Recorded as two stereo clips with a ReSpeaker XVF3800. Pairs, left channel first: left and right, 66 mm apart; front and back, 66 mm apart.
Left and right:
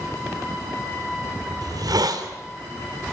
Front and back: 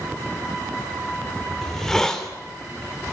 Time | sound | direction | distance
1.6 | a hiss | 80° right | 2.5 m